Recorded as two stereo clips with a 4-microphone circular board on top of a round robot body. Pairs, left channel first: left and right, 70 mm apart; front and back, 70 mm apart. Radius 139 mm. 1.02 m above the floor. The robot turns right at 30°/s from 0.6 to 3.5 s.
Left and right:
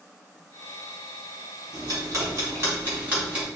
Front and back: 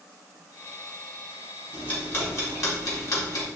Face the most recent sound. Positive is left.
turn(degrees=-15)